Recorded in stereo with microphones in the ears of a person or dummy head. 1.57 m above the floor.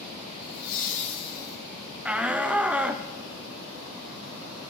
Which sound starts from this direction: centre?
A shout, at 2.0 s.